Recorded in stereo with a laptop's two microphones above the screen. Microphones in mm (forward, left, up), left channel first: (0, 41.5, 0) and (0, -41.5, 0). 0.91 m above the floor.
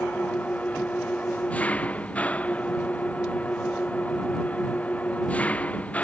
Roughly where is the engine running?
Centre.